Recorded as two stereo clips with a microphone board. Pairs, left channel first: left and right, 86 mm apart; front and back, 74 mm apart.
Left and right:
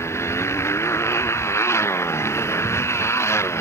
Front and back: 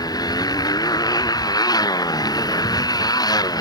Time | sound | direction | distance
0.0 | a motorcycle | 30° left | ?